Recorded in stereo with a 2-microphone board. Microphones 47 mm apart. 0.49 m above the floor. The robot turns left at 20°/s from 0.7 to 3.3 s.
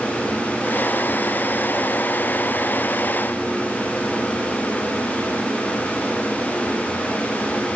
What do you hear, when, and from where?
Only background noise.